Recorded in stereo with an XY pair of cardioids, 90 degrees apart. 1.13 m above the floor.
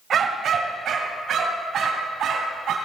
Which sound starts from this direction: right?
A dog barking, at 0.1 s.